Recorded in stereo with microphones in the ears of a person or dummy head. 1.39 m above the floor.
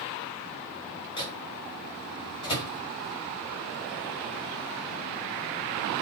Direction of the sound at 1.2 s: 30° left (ahead or behind).